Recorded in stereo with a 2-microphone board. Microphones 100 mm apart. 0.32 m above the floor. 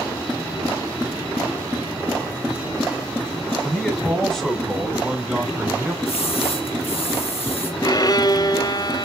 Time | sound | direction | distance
3.6 | a man speaking | 10° left (ahead or behind) | 2.5 m
6.0 | a splash | 70° left (ahead or behind) | 3.5 m
7.8 | a violin | 40° left (ahead or behind) | 0.6 m